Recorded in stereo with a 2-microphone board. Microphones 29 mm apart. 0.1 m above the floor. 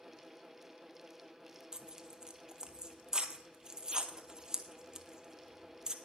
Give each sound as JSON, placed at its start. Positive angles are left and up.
{"t": 1.7, "sound": "tearing paper", "side_deg": -30, "distance_m": 0.7}